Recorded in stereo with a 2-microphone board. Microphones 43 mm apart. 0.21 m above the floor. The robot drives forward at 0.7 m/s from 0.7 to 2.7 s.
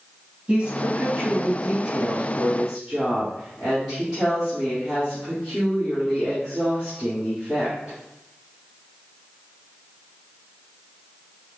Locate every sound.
0.5 s a woman speaking: 25° right (ahead or behind), 1.1 m; by 8.0 s 15° right (ahead or behind), 2 m